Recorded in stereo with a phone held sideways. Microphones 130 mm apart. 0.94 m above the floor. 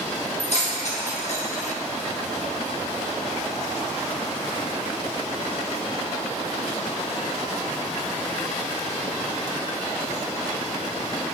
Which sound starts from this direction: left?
Keys jangling, at 0.4 s.